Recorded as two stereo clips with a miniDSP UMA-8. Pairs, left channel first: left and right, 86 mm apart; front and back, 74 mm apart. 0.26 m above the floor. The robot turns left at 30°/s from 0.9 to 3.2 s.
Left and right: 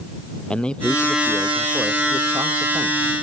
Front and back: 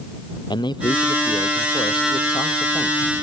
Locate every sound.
0.5 s a man speaking: 10° left; by 3.1 s 55° right